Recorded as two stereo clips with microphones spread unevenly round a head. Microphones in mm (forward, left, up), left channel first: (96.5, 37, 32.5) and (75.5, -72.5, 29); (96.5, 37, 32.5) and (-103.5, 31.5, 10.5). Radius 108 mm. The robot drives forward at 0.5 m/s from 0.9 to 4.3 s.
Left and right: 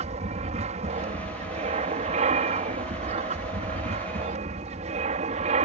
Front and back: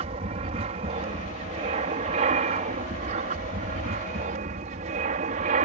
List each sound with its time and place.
0.0 s an aircraft: 120° right; by 5.7 s 125° right